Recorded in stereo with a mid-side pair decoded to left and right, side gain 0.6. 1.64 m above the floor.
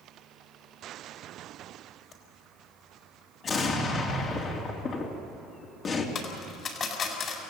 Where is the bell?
No bell in this recording.